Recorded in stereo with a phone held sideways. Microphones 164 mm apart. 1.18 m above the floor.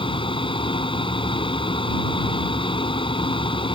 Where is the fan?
30° left (ahead or behind).